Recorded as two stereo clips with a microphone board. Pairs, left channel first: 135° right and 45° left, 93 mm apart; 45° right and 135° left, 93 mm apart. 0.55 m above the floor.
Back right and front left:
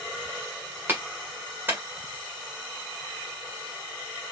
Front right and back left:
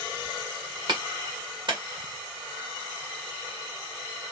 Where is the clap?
110° left, 1.9 m.